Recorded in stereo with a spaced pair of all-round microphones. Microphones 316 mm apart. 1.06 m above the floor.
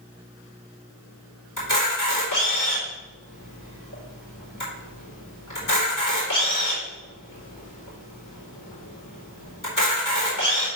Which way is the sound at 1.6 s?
85° left.